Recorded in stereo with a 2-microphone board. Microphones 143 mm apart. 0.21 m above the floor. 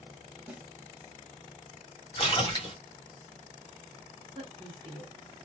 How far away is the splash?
About 1.8 m.